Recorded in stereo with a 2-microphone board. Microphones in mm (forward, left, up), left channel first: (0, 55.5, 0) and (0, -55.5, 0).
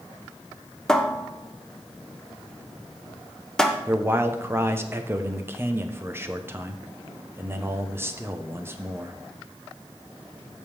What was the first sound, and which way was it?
A cupboard door, 5° left (ahead or behind).